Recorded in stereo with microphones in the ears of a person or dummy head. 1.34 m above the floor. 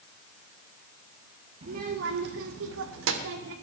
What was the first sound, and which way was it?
A child speaking, 35° right (ahead or behind).